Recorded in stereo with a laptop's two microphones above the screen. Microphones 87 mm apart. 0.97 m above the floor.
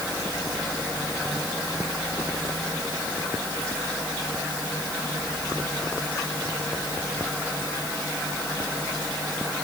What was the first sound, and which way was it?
Only background noise.